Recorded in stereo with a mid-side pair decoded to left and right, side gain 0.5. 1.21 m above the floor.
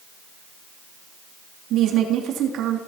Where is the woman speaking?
70° right, 3 m.